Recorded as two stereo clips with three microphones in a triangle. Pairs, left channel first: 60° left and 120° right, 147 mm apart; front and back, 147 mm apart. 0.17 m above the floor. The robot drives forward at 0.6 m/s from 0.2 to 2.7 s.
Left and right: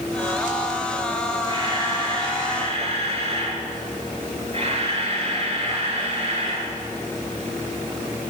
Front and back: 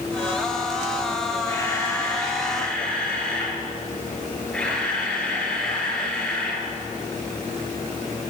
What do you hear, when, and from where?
1.5 s a camera shutter: 70° right, 3 m; by 6.7 s 85° right, 3 m